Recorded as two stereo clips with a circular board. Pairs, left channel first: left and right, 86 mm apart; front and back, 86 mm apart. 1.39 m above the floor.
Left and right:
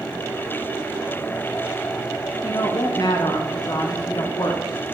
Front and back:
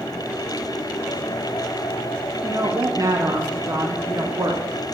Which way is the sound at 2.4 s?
130° left.